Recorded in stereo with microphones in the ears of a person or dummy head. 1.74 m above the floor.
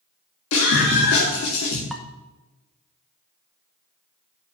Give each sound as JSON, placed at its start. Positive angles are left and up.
{"t": 0.5, "sound": "a scream", "side_deg": 70, "distance_m": 2.5}
{"t": 1.9, "sound": "dishes clattering", "side_deg": 0, "distance_m": 0.9}